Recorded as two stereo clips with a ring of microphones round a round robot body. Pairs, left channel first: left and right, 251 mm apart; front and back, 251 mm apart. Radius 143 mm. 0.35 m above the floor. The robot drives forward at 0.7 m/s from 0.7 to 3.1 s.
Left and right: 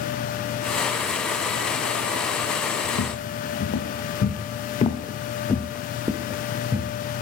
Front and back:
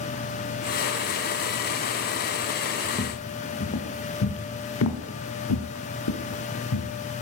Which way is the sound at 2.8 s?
55° left.